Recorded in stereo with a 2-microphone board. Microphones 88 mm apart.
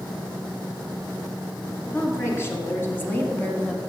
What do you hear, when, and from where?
1.9 s a woman speaking: 30° left (ahead or behind), 2 m; by 3.8 s 10° left (ahead or behind), 1.1 m